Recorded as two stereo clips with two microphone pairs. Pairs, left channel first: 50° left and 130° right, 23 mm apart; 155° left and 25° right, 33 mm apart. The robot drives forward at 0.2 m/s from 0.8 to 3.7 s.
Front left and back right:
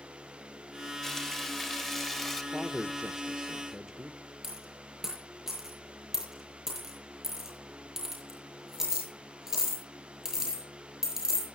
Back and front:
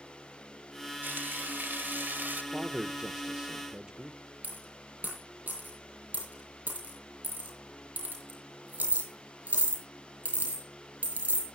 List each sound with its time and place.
1.0 s frying: 35° right, 1.2 m; by 2.4 s 45° right, 1.0 m
2.5 s a man speaking: 60° right, 0.7 m; by 4.2 s 90° right, 0.7 m
4.4 s a dropped coin: 60° right, 5.5 m